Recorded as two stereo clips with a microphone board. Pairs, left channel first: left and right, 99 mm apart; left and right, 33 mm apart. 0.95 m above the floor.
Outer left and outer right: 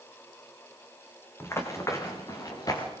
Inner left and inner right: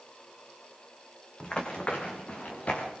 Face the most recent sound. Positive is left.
turn(degrees=40)  # may be behind; listen again after turning